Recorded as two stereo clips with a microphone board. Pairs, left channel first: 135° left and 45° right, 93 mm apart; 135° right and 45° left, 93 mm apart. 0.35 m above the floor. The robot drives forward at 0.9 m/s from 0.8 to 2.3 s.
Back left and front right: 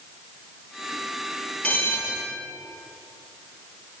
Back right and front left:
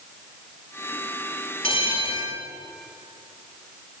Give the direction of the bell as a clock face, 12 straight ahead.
5 o'clock.